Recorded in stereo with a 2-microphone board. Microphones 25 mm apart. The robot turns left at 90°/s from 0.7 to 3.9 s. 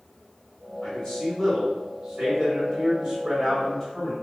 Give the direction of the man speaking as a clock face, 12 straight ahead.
9 o'clock.